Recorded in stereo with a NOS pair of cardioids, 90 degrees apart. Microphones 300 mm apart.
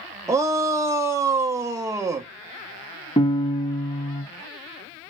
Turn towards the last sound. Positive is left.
turn(degrees=20)